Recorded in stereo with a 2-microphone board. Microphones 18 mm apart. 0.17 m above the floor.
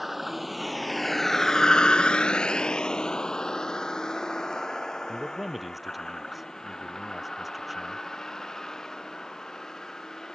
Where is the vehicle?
Centre (ahead or behind); by 10.3 s 20° left (ahead or behind).